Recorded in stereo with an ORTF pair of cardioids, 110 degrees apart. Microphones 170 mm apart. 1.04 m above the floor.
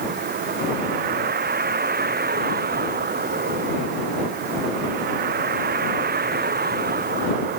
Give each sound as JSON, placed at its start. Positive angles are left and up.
{"t": 0.0, "sound": "a vehicle", "azimuth_deg": -65}